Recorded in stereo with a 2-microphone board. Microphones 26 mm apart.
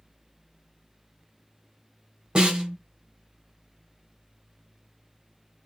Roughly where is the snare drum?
Right.